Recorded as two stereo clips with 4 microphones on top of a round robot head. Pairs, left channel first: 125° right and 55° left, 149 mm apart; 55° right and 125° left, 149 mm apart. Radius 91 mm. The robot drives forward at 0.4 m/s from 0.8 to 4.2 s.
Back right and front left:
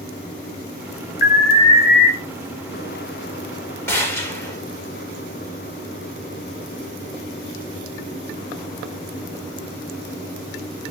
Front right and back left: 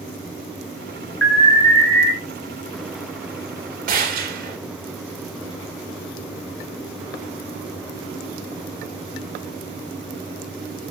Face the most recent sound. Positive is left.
turn(degrees=160)